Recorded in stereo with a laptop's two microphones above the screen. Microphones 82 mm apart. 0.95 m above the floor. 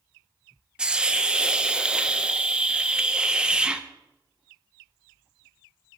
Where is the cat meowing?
No cat meowing in this recording.